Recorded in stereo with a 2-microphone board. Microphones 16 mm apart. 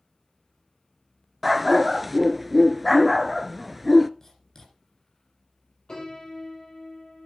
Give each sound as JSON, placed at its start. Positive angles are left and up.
{"t": 1.4, "sound": "a dog barking", "side_deg": -5, "distance_m": 0.6}
{"t": 4.2, "sound": "writing", "side_deg": 20, "distance_m": 8.5}
{"t": 5.9, "sound": "a piano", "side_deg": 40, "distance_m": 6.5}